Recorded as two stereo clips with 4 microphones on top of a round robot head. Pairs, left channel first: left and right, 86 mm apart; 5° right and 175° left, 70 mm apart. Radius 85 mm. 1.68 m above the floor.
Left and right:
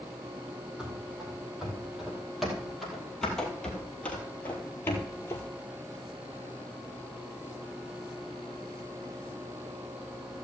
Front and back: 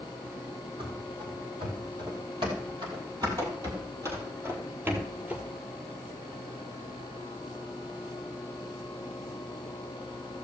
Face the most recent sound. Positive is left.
turn(degrees=110)